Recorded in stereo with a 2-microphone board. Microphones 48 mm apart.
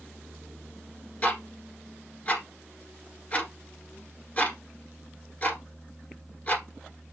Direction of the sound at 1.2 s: 35° left (ahead or behind).